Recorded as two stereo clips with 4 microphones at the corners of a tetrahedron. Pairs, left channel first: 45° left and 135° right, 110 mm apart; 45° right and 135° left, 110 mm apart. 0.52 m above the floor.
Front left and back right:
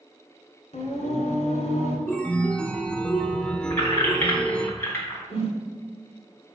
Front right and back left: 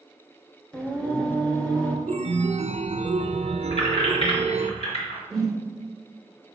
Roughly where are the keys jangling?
Ahead right.